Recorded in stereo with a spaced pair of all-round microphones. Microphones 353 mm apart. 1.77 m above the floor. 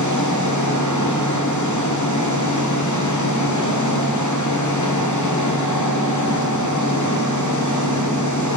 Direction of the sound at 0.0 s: 55° left (ahead or behind).